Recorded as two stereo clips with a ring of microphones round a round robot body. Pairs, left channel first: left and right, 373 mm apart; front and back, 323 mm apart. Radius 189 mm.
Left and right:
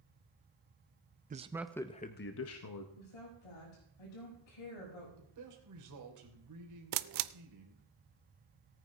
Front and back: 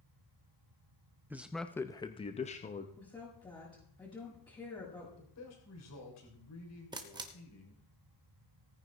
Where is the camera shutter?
105° right, 0.5 m.